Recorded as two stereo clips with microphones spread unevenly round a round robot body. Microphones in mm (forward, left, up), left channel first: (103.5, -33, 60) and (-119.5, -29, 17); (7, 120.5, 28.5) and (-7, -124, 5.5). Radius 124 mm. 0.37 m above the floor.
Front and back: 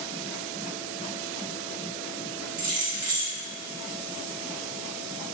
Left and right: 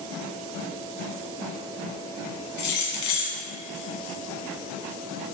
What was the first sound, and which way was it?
Keys jangling, 100° left.